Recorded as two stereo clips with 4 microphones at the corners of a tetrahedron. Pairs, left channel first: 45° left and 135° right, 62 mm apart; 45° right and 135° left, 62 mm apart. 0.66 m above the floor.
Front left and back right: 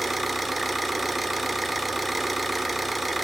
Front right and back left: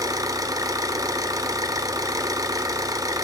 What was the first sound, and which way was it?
An engine running, 140° left.